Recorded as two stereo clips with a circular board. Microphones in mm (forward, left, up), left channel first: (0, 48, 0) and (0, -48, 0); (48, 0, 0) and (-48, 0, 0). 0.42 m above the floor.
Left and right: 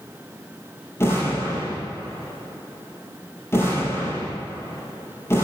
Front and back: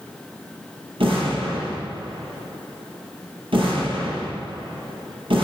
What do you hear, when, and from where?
1.0 s an explosion: 155° left, 5 m